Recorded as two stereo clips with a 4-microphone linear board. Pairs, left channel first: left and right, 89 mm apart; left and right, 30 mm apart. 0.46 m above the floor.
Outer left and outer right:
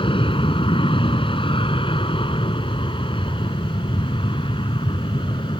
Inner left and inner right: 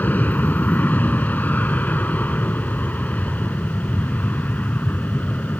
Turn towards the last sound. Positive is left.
turn(degrees=70)  # may be behind; listen again after turning